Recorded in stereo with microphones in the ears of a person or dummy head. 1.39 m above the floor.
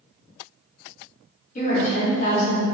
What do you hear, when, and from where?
1.6 s a woman speaking: 45° left (ahead or behind), 1.4 m